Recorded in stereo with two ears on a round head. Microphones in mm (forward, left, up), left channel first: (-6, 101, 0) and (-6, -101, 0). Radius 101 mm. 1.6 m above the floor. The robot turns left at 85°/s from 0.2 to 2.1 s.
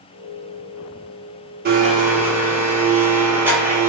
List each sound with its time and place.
1.6 s a blender: 130° right, 0.8 m; by 3.9 s 170° right, 0.8 m